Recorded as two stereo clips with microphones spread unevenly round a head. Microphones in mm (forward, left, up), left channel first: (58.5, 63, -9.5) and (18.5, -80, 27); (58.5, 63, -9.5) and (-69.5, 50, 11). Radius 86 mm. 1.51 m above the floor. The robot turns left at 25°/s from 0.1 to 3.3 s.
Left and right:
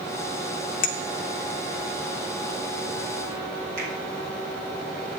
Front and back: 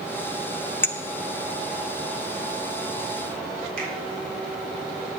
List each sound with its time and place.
0.8 s a clink: 85° left, 1.0 m; by 0.9 s 80° left, 1.0 m
3.8 s a finger snap: 165° right, 5 m